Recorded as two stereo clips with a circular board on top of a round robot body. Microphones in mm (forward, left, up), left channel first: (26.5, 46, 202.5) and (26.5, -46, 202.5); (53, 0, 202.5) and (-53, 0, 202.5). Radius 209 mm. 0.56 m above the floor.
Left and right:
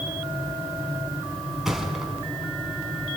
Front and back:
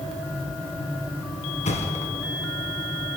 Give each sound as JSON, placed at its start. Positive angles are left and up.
{"t": 1.6, "sound": "a thud", "azimuth_deg": 0, "distance_m": 3.0}